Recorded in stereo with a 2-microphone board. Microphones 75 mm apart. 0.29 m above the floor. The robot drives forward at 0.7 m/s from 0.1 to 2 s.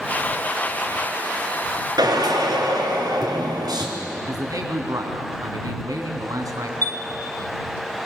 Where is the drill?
60° right (ahead or behind), 3.5 m.